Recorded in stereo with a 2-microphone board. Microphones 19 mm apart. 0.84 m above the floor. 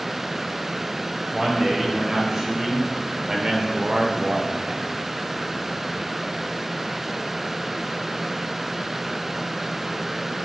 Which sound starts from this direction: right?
A man speaking, at 1.3 s.